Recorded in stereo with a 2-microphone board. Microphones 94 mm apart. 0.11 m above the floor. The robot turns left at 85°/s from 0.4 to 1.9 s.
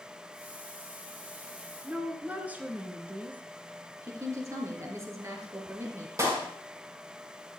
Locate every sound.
1.8 s a woman speaking: 15° right (ahead or behind), 1.3 m
4.0 s a woman speaking: 35° right (ahead or behind), 2 m
6.2 s a clap: 35° right (ahead or behind), 3.5 m